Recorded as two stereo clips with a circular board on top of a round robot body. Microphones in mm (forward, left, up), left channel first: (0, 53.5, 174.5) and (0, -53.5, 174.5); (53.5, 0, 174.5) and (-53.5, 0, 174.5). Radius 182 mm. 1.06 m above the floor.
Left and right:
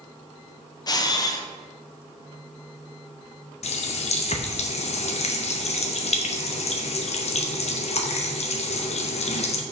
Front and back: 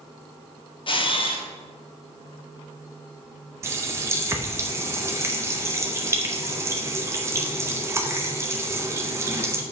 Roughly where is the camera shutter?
Ahead left.